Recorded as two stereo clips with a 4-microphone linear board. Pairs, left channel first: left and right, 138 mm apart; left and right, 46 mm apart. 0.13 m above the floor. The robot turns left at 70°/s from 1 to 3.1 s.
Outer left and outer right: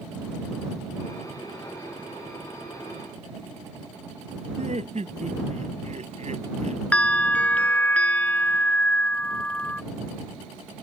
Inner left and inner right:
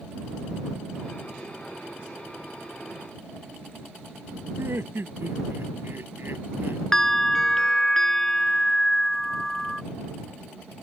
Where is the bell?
10° left (ahead or behind).